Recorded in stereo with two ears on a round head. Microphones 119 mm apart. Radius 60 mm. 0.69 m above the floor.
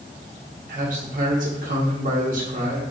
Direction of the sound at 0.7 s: 65° right (ahead or behind).